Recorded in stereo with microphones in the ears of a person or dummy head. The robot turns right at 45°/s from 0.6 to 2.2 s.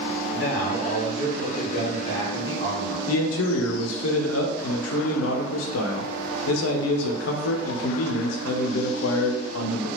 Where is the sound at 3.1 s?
80° left, 0.6 m.